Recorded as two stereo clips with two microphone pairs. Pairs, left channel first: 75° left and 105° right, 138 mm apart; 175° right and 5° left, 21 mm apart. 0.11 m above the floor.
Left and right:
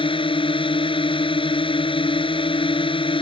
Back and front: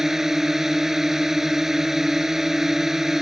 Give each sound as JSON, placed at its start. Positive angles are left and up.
{"t": 0.0, "sound": "a drone", "azimuth_deg": 65}